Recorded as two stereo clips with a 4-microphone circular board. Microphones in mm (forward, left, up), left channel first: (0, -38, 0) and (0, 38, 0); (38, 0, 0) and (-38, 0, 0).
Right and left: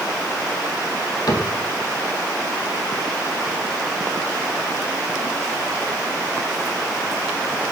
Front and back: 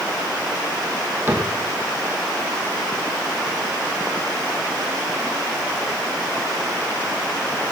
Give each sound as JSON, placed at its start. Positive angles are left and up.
{"t": 1.3, "sound": "a cupboard door", "azimuth_deg": -120, "distance_m": 3.5}